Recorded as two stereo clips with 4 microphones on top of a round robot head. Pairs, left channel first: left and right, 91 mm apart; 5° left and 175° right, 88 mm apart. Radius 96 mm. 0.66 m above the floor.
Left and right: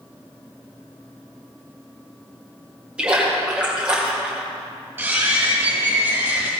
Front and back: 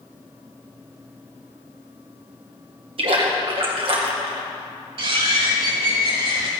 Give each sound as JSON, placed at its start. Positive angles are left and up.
{"t": 3.0, "sound": "a splash", "azimuth_deg": -170, "distance_m": 2.0}
{"t": 5.0, "sound": "a bird", "azimuth_deg": -160, "distance_m": 4.0}